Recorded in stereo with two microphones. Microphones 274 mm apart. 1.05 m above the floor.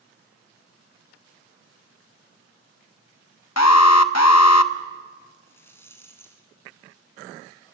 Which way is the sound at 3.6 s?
70° left (ahead or behind).